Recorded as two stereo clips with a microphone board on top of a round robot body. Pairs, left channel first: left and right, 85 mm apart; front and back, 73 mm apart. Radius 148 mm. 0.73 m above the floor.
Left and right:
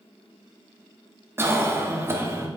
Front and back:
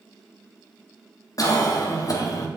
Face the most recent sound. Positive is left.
turn(degrees=-30)